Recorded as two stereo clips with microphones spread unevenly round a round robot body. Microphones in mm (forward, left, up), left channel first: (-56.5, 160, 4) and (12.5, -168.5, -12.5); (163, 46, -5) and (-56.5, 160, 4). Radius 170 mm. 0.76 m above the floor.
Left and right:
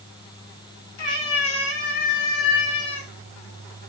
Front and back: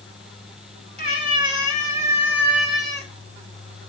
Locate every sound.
1.0 s a cat meowing: 90° left, 5.5 m; by 3.1 s 60° left, 5 m